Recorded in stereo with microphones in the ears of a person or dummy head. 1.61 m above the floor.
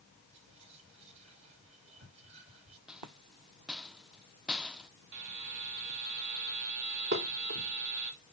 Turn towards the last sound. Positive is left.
turn(degrees=-55)  # may be behind; listen again after turning